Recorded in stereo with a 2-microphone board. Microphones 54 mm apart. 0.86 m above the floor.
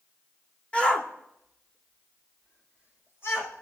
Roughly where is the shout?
Left.